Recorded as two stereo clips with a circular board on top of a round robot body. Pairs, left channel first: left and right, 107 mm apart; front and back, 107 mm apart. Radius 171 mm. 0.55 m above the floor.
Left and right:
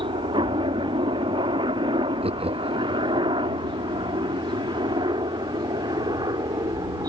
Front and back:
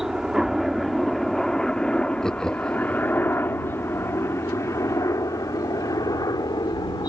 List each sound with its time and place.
0.0 s a helicopter: 95° right; by 7.1 s 45° right
2.2 s laughter: 85° right